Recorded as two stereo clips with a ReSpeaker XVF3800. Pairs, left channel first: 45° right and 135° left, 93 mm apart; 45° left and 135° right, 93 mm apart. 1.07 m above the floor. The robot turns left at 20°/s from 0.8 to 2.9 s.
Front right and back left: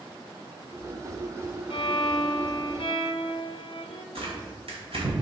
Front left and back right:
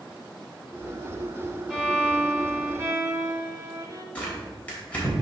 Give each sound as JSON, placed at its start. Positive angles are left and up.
{"t": 1.7, "sound": "a violin", "azimuth_deg": -50, "distance_m": 0.9}
{"t": 4.2, "sound": "tearing paper", "azimuth_deg": 120, "distance_m": 3.0}